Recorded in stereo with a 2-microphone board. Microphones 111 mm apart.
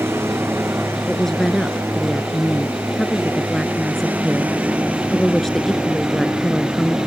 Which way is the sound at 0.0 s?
20° right (ahead or behind).